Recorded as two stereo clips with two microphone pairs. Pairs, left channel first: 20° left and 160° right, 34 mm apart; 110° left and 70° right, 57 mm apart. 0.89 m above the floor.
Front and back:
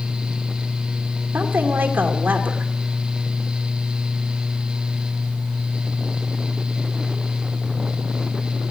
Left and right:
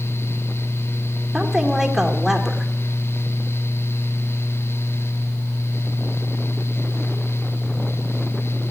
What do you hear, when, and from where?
1.3 s a woman speaking: 155° right, 2 m